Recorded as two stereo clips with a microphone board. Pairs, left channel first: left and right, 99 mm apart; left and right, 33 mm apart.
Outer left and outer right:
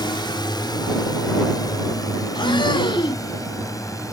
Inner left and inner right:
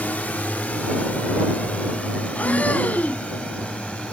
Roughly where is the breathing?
Left.